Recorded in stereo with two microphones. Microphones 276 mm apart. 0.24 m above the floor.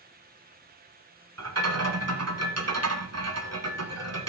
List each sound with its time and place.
1.4 s a rattle: 60° right (ahead or behind), 1.5 m